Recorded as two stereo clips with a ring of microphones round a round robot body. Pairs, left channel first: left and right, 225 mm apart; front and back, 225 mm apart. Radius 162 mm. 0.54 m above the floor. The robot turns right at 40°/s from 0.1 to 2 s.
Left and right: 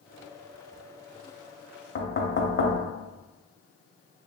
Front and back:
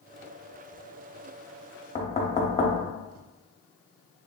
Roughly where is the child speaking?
No child speaking in this recording.